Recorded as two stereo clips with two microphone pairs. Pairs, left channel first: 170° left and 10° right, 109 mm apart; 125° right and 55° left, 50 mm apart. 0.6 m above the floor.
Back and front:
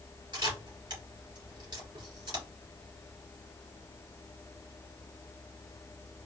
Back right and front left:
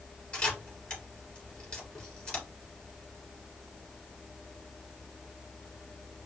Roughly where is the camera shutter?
Ahead right.